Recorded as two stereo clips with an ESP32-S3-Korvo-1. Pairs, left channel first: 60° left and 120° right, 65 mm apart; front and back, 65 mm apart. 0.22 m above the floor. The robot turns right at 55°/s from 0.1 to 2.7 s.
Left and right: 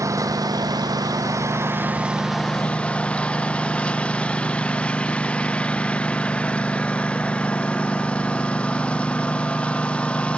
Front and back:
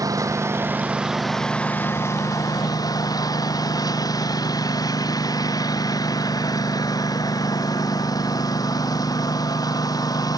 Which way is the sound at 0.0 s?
155° right.